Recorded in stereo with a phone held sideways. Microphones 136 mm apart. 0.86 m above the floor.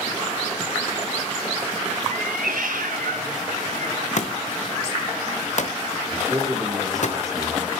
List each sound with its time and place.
2.1 s a cat meowing: 65° right (ahead or behind), 0.8 m
4.2 s a thud: 60° left (ahead or behind), 1.0 m
6.1 s a man speaking: 25° right (ahead or behind), 2.5 m